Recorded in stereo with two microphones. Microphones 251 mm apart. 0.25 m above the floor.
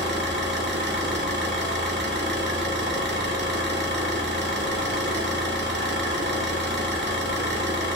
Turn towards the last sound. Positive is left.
turn(degrees=-45)  # may be behind; listen again after turning